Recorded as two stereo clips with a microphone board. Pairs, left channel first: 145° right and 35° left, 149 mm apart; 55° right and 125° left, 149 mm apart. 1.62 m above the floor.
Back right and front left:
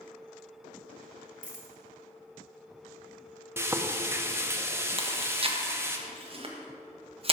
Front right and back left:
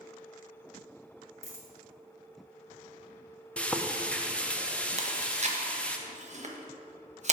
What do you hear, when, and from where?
1.4 s a dropped coin: 55° left, 2 m
3.6 s frying: 10° left, 0.6 m
5.0 s chewing: 85° left, 1.0 m